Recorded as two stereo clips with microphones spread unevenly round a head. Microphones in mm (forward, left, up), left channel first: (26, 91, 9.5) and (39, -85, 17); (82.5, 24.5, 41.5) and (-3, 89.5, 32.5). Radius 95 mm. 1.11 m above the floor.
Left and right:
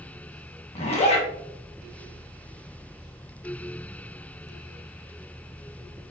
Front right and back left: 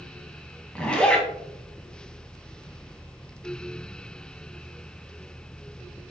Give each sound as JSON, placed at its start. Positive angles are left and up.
{"t": 0.8, "sound": "a zipper", "azimuth_deg": 40, "distance_m": 1.8}